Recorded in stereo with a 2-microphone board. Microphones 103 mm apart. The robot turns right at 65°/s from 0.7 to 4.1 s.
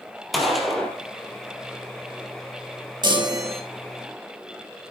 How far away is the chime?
About 2.5 m.